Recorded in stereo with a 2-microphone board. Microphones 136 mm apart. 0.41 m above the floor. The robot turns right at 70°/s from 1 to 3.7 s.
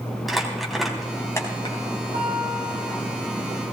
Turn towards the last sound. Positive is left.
turn(degrees=50)